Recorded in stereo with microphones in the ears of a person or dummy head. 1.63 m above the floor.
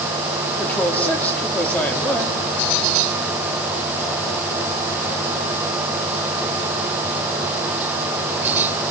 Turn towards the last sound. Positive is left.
turn(degrees=10)  # may be behind; listen again after turning